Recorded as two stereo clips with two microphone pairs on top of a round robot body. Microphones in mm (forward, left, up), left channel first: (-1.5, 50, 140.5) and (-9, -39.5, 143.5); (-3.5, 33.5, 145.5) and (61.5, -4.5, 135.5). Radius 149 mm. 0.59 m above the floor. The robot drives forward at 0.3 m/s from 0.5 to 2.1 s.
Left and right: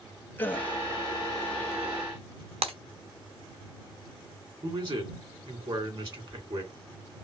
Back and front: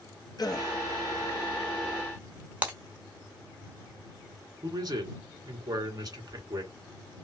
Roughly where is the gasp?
Behind left.